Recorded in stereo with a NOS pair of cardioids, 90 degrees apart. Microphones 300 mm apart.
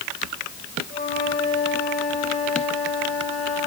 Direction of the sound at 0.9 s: 25° left.